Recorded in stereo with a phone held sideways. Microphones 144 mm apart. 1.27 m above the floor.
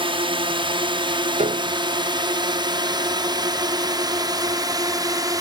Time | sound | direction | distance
0.0 | a drone | 35° right (ahead or behind) | ?
1.4 | a piano | 55° right (ahead or behind) | ?